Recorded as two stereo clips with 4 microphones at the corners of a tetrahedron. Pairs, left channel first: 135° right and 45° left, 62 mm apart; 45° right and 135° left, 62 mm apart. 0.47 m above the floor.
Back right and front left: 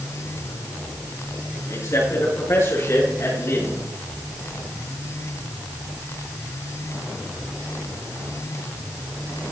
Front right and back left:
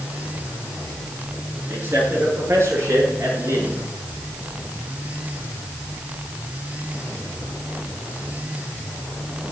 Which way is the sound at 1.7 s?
170° right.